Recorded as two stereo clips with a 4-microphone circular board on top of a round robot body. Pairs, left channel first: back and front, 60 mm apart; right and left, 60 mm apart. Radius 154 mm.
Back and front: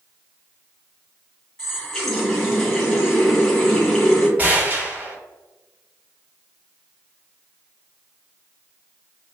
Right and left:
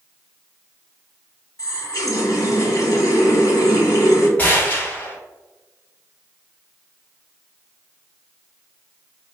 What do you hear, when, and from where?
1.6 s a running tap: 100° right, 1.3 m
4.4 s a gunshot: 50° right, 1.3 m